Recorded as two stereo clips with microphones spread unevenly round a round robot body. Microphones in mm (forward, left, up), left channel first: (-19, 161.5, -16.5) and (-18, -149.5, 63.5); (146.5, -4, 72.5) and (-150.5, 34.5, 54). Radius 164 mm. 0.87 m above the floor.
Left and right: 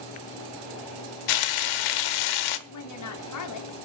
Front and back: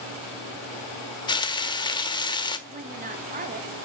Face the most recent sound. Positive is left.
turn(degrees=110)